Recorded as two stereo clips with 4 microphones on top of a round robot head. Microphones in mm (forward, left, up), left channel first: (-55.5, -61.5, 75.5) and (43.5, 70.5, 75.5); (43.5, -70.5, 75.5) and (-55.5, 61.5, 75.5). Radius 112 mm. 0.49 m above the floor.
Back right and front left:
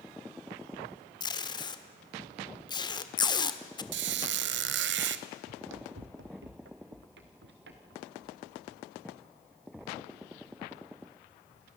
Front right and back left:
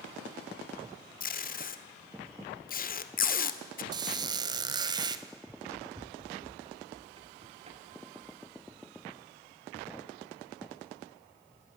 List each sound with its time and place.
1.2 s tape being pulled: 65° right, 1.5 m
3.9 s a squeak: 60° left, 1.0 m
5.5 s running footsteps: 45° left, 1.2 m; by 11.7 s 75° left, 7 m